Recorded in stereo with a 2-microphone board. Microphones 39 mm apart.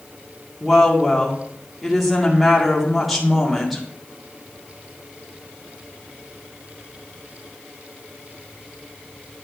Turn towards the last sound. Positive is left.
turn(degrees=0)  # may be behind; listen again after turning